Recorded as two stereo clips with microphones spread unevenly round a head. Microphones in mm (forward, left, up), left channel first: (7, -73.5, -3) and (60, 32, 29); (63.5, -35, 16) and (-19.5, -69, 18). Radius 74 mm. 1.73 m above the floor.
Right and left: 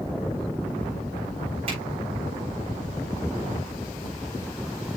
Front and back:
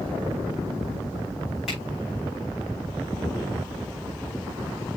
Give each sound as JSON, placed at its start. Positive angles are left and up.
{"t": 1.7, "sound": "a finger snap", "azimuth_deg": 115, "distance_m": 6.0}